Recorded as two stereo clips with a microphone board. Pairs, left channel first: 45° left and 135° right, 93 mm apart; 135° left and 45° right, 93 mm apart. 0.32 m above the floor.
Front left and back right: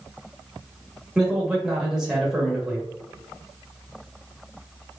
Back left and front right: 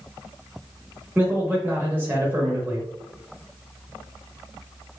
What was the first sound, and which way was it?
A man speaking, 65° right.